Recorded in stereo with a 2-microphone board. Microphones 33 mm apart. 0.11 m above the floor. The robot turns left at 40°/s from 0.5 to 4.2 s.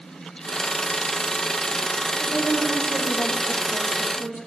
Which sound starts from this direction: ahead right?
A woman speaking, at 2.2 s.